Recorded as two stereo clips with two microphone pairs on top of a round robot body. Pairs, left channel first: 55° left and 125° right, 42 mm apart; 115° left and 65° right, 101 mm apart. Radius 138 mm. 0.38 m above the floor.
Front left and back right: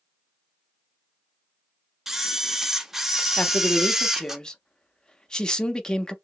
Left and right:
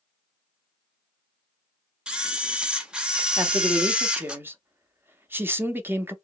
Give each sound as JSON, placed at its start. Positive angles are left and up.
{"t": 2.1, "sound": "a camera shutter", "azimuth_deg": -115, "distance_m": 1.0}
{"t": 3.4, "sound": "a man speaking", "azimuth_deg": -25, "distance_m": 0.9}